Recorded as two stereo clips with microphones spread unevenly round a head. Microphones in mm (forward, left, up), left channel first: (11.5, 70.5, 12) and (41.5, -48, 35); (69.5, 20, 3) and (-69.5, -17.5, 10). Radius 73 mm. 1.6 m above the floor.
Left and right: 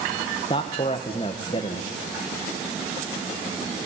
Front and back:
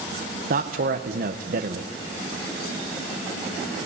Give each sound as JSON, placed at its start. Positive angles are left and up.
{"t": 0.5, "sound": "a man speaking", "azimuth_deg": 165, "distance_m": 1.1}